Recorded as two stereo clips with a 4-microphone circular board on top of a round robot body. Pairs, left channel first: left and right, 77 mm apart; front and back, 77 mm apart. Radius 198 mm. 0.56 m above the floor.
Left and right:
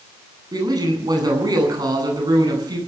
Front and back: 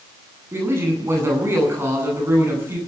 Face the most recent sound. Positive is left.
turn(degrees=-120)